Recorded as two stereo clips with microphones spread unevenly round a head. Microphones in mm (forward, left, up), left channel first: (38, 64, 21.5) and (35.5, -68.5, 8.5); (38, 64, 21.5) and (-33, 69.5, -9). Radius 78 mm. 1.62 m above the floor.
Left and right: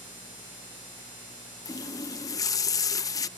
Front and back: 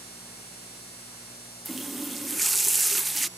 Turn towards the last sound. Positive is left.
turn(degrees=50)